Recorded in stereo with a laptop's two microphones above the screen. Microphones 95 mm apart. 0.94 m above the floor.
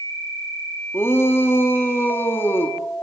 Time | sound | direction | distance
0.9 | a shout | 25° left (ahead or behind) | 1.7 m